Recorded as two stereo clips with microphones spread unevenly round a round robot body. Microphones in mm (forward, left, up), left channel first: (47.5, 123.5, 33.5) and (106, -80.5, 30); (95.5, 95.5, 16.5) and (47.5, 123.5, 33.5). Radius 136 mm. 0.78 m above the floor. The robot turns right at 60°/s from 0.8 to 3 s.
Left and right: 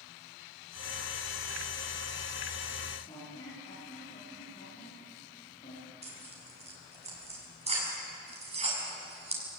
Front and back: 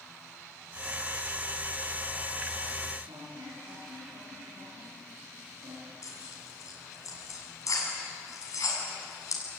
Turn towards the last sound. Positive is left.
turn(degrees=-15)